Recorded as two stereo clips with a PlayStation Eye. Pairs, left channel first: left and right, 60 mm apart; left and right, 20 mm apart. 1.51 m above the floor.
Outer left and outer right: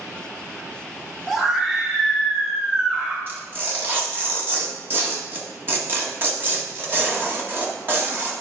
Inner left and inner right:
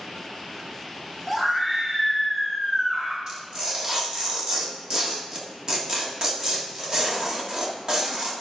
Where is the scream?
15° right (ahead or behind), 1.9 m; by 3.2 s 20° right (ahead or behind), 3 m.